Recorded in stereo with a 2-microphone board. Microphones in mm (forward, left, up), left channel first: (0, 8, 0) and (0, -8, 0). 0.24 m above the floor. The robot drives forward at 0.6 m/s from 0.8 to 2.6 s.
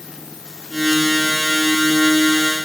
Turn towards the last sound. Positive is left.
No sound to turn to.